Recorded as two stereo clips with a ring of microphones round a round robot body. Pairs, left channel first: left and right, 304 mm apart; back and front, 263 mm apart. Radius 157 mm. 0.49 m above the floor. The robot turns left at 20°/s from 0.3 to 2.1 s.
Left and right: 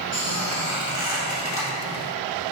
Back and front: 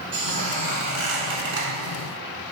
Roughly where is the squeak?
Ahead left.